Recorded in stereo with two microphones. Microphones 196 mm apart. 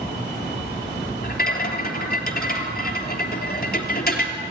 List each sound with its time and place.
1.2 s a rattle: 50° left (ahead or behind), 3 m